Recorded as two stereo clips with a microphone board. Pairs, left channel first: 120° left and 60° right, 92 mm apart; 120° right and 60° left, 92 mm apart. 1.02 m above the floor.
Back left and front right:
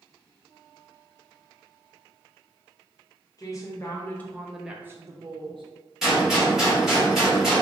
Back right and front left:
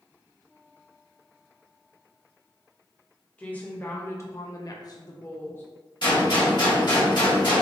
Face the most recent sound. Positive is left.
turn(degrees=-145)